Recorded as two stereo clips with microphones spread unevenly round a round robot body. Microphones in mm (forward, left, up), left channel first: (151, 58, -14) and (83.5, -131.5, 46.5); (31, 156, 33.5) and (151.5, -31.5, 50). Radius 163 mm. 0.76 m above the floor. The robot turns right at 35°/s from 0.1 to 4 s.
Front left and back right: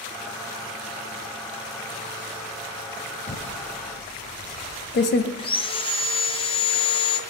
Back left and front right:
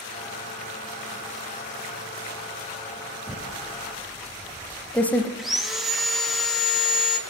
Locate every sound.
3.3 s typing on a keyboard: 10° left, 0.7 m; by 5.3 s 35° left, 0.7 m
5.4 s sawing: 35° left, 1.3 m